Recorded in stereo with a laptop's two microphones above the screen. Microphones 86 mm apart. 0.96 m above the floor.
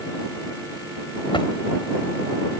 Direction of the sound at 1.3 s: 80° left.